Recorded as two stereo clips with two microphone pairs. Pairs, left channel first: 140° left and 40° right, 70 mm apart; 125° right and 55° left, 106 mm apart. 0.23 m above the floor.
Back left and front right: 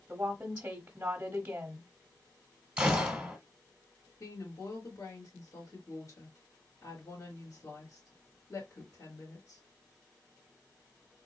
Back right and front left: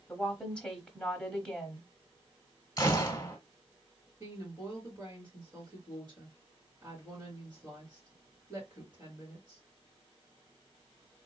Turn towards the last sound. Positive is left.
turn(degrees=110)